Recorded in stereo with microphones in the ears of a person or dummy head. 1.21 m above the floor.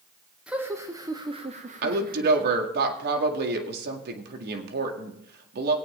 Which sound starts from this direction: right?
A woman speaking, at 1.8 s.